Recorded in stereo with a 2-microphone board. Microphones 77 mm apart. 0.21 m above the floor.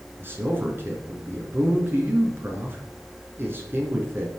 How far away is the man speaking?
About 2.5 m.